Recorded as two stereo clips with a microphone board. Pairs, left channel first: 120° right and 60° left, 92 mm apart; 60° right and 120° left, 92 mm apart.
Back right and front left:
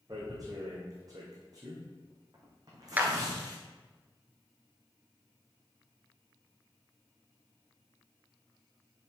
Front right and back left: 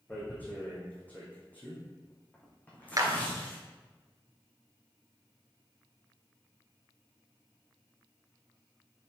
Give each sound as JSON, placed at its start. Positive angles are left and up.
{"t": 0.1, "sound": "tearing paper", "azimuth_deg": 15, "distance_m": 3.5}
{"t": 3.0, "sound": "a clap", "azimuth_deg": 120, "distance_m": 1.3}